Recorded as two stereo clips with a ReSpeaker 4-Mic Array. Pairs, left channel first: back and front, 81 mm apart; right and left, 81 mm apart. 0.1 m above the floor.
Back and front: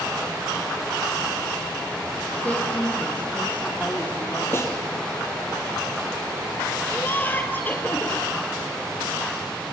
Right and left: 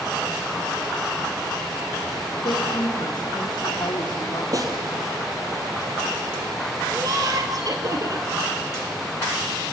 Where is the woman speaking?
110° right, 4 m.